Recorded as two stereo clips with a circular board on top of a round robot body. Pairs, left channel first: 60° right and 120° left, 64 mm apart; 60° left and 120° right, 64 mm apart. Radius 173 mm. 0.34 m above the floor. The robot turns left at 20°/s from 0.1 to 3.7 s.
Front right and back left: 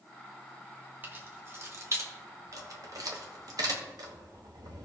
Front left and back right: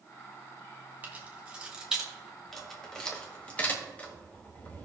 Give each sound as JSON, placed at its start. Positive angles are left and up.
{"t": 1.0, "sound": "keys jangling", "azimuth_deg": 180, "distance_m": 2.0}